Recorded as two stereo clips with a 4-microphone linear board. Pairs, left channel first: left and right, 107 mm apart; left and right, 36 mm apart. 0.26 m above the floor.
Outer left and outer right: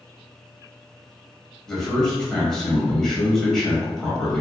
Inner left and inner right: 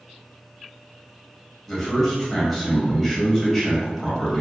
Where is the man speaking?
5° left (ahead or behind), 1.1 m.